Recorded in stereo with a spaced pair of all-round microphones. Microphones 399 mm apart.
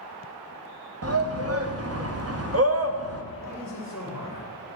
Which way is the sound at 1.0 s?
35° right (ahead or behind).